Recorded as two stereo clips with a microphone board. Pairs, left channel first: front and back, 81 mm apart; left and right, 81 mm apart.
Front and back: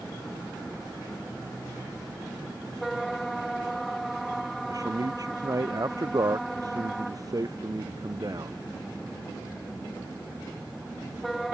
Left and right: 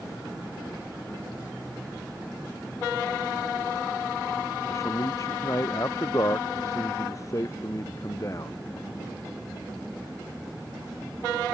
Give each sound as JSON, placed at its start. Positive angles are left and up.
{"t": 4.7, "sound": "a man speaking", "azimuth_deg": 140}